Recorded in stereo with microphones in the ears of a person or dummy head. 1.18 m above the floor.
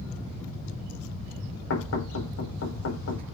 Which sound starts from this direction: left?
Knocking, at 1.7 s.